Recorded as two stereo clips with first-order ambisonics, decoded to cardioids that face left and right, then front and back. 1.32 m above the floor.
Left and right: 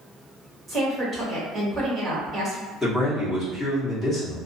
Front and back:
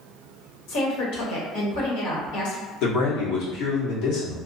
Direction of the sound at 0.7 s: 15° right.